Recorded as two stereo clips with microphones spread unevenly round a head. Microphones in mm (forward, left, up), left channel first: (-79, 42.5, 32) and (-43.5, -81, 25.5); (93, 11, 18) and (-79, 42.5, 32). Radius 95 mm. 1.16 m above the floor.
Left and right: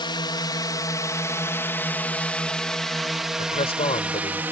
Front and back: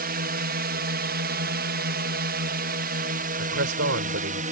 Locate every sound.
0.0 s a drone: 150° left; by 4.5 s 145° right
3.4 s a man speaking: 145° left